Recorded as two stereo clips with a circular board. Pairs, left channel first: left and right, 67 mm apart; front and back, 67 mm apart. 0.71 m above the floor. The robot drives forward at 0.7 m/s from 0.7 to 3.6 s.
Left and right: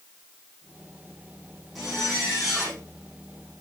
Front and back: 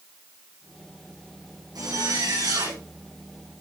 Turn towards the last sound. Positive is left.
turn(degrees=180)